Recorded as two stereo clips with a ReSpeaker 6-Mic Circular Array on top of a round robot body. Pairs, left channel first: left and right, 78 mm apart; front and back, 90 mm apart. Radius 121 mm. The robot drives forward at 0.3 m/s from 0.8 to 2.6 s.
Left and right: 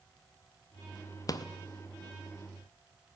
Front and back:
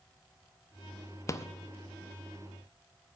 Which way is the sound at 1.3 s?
55° left.